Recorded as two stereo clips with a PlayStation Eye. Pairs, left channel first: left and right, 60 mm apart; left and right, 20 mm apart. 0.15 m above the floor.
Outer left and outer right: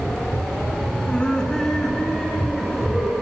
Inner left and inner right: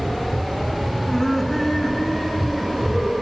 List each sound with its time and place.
1.1 s laughter: 20° left (ahead or behind), 1.4 m; by 3.1 s 5° right (ahead or behind), 3 m